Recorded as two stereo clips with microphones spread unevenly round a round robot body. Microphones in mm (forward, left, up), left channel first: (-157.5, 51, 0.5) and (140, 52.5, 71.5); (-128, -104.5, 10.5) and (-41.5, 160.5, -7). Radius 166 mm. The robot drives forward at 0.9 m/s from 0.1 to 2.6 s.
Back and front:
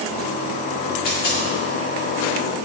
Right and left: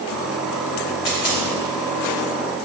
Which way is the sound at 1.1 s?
115° right.